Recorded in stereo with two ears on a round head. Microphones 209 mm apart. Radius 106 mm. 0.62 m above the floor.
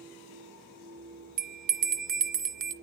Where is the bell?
35° right (ahead or behind), 1.4 m.